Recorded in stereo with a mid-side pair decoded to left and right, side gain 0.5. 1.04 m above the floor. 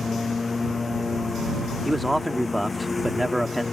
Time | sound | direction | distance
0.0 | a lawn mower | 25° left | ?
1.9 | a man speaking | straight ahead | ?